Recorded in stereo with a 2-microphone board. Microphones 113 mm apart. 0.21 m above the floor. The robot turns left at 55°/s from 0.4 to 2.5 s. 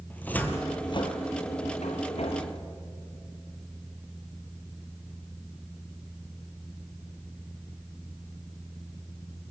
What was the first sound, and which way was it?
A cupboard door, 15° left (ahead or behind).